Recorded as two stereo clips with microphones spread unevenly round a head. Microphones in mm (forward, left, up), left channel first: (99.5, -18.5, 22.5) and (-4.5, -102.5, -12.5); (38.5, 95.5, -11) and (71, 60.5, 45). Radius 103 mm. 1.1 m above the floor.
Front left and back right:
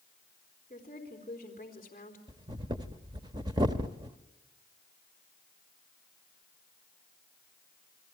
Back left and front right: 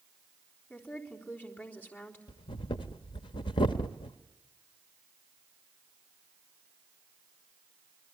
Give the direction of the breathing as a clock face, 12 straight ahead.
7 o'clock.